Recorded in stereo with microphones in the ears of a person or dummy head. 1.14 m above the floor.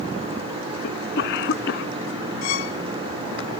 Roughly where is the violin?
Left.